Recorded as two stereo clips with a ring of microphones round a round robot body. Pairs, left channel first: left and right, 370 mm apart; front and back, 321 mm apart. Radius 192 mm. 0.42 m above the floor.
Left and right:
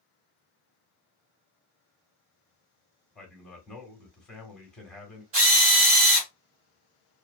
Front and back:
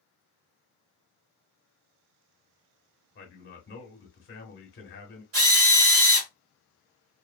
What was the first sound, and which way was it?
A man speaking, 5° left.